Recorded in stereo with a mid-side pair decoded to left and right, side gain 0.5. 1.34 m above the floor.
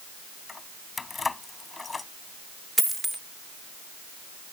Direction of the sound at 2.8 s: 10° right.